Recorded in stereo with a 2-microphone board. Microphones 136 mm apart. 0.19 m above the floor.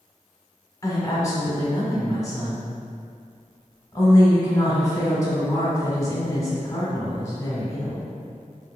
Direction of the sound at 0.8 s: 25° left (ahead or behind).